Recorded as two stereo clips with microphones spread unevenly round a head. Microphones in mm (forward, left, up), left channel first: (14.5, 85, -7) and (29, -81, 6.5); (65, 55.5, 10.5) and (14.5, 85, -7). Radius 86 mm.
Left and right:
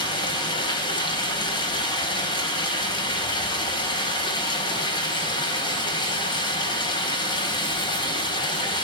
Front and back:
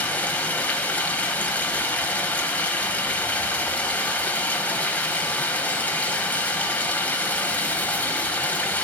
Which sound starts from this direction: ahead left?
Running water, at 0.0 s.